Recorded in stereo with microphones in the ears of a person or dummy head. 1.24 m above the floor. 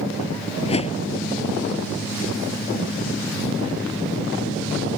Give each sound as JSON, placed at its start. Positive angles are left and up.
{"t": 0.6, "sound": "a whoosh", "side_deg": 35}